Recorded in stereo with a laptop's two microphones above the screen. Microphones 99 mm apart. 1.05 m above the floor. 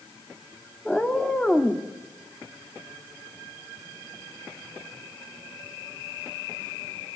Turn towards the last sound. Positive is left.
turn(degrees=5)  # may be behind; listen again after turning